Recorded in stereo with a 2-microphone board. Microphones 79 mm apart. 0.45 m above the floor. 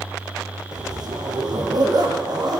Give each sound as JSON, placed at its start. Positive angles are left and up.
{"t": 0.7, "sound": "a zipper", "side_deg": -60, "distance_m": 5.5}